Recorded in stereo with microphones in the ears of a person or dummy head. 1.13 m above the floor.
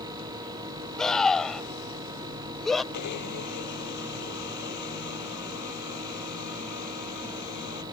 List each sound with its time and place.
1.0 s a scream: 5° left (ahead or behind); by 2.8 s centre (ahead or behind)
2.9 s a blender: 60° left (ahead or behind)